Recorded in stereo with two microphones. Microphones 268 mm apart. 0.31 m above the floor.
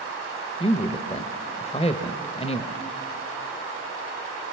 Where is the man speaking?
25° left (ahead or behind), 0.9 m.